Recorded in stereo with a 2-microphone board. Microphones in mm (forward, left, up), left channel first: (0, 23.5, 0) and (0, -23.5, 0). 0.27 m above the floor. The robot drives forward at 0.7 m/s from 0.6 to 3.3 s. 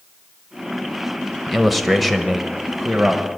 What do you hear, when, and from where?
1.5 s a man speaking: centre (ahead or behind), 1.0 m